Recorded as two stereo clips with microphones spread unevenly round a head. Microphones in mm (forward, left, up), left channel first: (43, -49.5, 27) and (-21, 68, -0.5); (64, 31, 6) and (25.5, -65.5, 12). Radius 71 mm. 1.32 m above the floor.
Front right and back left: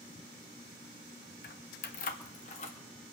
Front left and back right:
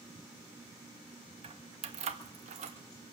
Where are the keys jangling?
80° right, 1.4 m; by 2.8 s 105° right, 1.8 m.